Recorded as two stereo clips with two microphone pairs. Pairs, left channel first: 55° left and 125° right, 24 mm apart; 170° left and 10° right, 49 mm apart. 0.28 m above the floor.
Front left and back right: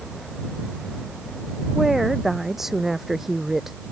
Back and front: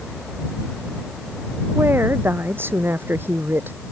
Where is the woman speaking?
50° right.